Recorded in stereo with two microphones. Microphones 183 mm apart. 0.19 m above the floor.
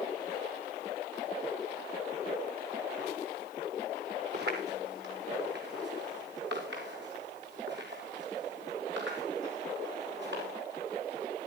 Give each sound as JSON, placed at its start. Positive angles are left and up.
{"t": 4.3, "sound": "footsteps", "side_deg": -65, "distance_m": 5.0}